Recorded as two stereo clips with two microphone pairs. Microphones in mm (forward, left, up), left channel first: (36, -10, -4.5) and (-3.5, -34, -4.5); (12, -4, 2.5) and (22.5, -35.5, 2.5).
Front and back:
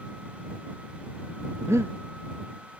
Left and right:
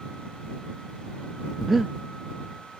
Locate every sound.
1.6 s breathing: 155° right